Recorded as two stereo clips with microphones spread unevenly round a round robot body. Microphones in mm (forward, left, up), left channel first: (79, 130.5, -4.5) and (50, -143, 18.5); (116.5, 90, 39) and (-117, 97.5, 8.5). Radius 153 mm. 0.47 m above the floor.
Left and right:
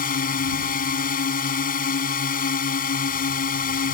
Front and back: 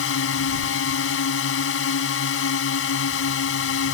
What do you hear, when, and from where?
0.0 s a drone: 25° left